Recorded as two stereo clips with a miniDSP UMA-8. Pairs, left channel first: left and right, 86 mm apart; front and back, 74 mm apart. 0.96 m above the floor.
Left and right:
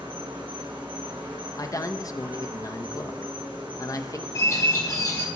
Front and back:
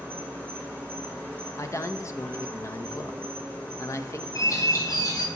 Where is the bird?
40° left, 1.5 m.